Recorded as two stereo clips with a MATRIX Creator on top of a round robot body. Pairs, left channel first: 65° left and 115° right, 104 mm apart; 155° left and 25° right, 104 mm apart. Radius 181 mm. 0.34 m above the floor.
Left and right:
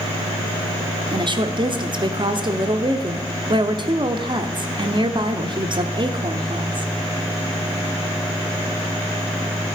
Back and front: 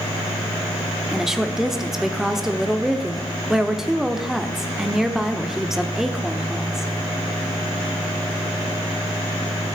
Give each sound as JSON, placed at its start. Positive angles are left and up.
{"t": 1.1, "sound": "a woman speaking", "azimuth_deg": -105, "distance_m": 1.2}